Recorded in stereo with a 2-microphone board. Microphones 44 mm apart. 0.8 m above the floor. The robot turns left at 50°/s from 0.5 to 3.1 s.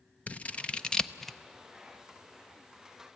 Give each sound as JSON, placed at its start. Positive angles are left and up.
{"t": 0.3, "sound": "scissors", "side_deg": 30, "distance_m": 0.6}